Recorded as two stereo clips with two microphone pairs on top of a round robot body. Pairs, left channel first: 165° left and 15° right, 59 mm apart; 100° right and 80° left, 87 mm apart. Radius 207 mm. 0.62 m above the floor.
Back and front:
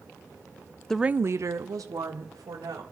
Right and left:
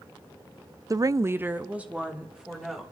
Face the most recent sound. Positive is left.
turn(degrees=-5)